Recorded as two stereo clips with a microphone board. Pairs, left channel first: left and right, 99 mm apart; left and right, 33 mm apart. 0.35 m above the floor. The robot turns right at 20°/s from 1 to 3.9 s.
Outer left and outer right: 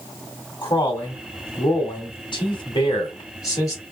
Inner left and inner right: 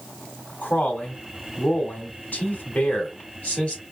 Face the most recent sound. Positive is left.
turn(degrees=140)